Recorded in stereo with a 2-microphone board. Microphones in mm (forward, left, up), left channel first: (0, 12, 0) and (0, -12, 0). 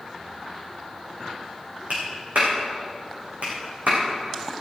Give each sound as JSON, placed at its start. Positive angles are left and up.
{"t": 1.9, "sound": "a clap", "side_deg": -80, "distance_m": 6.0}